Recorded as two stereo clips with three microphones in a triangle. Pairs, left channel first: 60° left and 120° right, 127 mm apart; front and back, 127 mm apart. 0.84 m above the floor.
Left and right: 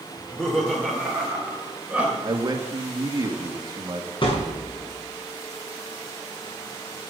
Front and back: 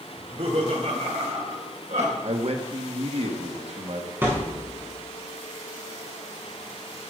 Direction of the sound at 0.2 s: 140° left.